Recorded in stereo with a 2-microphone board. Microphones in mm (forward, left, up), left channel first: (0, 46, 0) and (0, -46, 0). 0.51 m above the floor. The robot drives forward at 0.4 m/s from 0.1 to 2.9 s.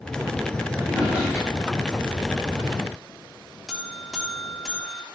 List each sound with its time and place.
0.8 s a drawer: 15° right (ahead or behind), 3.5 m; by 2.1 s 10° right (ahead or behind), 4.5 m
3.7 s a buzzer: 5° right (ahead or behind), 1.1 m